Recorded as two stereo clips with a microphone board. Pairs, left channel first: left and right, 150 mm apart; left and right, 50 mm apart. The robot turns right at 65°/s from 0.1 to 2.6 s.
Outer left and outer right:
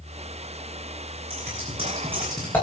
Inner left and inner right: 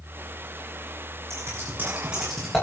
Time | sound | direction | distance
1.3 | scissors | 70° right (ahead or behind) | 7 m